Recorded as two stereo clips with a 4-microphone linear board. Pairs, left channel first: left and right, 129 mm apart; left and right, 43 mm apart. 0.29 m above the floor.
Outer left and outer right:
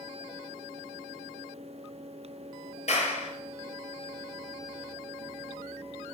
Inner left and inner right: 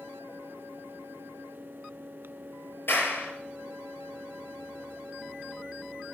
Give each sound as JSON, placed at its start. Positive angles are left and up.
{"t": 2.9, "sound": "a clap", "side_deg": 60, "distance_m": 4.5}